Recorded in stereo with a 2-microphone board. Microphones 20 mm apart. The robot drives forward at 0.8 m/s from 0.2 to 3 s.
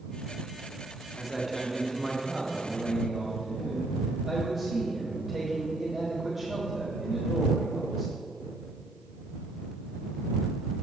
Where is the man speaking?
5° right (ahead or behind), 1.2 m.